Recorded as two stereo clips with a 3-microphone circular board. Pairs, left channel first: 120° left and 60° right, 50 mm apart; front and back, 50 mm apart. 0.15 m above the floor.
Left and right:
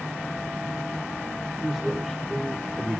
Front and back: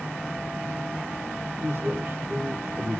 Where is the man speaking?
150° right, 3.5 m.